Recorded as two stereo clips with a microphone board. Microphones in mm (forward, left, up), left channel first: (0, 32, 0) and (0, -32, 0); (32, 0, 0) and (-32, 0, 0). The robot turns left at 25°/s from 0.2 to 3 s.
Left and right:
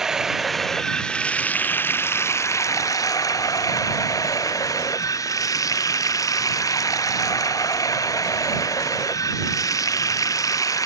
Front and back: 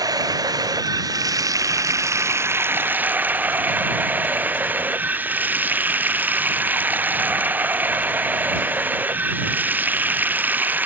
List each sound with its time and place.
0.0 s running water: 170° right; by 10.9 s 120° left